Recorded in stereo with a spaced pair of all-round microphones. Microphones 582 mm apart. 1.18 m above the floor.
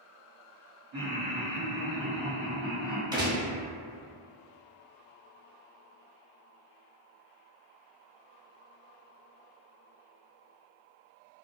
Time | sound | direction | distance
0.9 | laughter | 55° right (ahead or behind) | 1.2 m
3.1 | a gunshot | 10° right (ahead or behind) | 0.7 m